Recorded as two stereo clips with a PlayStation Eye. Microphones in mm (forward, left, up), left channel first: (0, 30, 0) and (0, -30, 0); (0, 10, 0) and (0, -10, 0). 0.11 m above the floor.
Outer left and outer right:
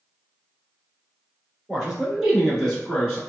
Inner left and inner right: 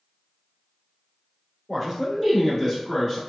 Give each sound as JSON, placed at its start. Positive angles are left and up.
{"t": 1.7, "sound": "a man speaking", "side_deg": -15, "distance_m": 1.3}